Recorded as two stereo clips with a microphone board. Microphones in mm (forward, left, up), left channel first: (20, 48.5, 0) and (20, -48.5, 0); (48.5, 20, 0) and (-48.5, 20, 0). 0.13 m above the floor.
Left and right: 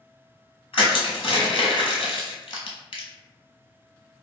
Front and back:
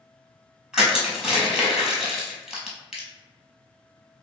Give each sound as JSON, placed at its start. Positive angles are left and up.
{"t": 0.7, "sound": "crushing", "azimuth_deg": 95, "distance_m": 1.0}